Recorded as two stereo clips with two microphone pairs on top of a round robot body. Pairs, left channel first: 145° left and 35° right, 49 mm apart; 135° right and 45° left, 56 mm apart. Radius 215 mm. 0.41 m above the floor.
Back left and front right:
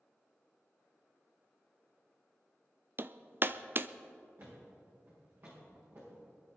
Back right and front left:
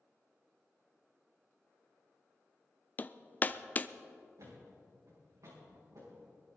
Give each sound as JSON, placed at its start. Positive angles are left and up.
{"t": 3.0, "sound": "hammering", "azimuth_deg": -80, "distance_m": 0.6}
{"t": 4.4, "sound": "a thud", "azimuth_deg": 10, "distance_m": 6.0}